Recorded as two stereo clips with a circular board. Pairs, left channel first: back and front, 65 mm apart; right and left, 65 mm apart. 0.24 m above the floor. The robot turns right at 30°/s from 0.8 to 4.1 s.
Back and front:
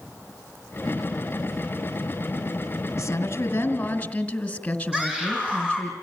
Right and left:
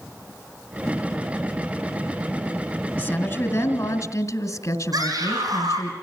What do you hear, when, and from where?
3.0 s a woman speaking: 145° right, 2.5 m; by 5.9 s 110° right, 2.5 m
4.9 s a scream: 75° left, 10 m